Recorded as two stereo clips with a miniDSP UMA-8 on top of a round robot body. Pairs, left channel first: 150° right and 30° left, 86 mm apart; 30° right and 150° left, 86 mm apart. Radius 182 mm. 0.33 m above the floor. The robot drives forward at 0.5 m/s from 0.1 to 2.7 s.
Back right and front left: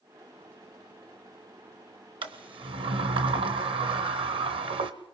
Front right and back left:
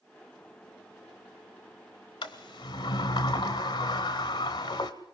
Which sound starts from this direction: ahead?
A sliding door, at 2.2 s.